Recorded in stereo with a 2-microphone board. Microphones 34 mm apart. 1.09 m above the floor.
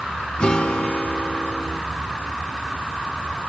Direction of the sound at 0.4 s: 35° left (ahead or behind).